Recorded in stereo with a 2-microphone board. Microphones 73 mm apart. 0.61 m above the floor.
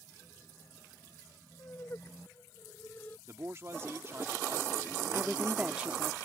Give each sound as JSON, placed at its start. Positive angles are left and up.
{"t": 1.6, "sound": "laughter", "side_deg": 40}
{"t": 3.3, "sound": "a man speaking", "side_deg": -40}
{"t": 5.1, "sound": "a woman speaking", "side_deg": -15}